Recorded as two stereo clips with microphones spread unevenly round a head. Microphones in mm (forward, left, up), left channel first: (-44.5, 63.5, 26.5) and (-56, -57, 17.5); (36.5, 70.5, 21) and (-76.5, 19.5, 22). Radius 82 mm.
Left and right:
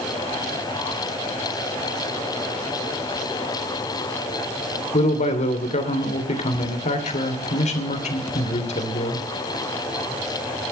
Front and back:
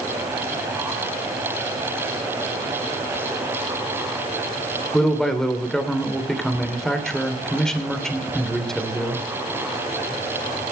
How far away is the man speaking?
About 3 m.